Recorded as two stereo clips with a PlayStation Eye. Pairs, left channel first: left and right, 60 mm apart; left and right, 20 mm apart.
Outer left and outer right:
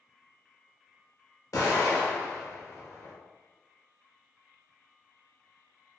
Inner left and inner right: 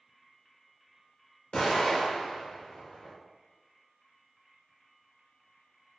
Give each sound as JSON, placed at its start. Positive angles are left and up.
{"t": 1.5, "sound": "an explosion", "side_deg": 60, "distance_m": 1.0}